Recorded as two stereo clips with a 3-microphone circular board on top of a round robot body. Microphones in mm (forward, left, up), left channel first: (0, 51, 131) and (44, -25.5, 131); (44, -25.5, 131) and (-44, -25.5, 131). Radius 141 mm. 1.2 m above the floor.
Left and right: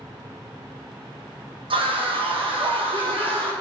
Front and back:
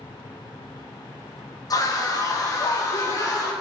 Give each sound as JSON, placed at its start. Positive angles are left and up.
{"t": 1.7, "sound": "a scream", "azimuth_deg": -45, "distance_m": 2.5}